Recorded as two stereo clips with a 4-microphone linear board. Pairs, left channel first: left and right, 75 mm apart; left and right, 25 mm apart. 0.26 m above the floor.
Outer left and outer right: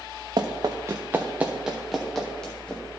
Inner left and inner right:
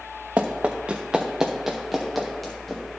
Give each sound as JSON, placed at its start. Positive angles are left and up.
{"t": 0.4, "sound": "running footsteps", "side_deg": -65, "distance_m": 1.6}